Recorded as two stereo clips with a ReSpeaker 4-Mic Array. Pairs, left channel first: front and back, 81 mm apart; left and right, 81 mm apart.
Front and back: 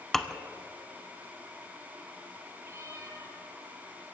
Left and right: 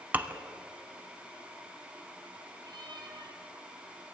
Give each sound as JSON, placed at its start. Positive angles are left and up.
{"t": 0.1, "sound": "dishes clattering", "azimuth_deg": -75, "distance_m": 0.7}
{"t": 2.6, "sound": "a cat meowing", "azimuth_deg": -125, "distance_m": 2.5}